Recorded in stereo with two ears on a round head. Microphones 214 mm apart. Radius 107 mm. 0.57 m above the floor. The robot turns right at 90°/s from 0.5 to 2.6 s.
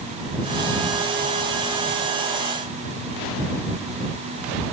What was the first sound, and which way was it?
Only background noise.